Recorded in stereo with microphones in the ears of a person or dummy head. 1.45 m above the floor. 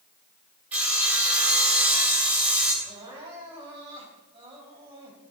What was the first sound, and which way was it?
Sawing, 5° right (ahead or behind).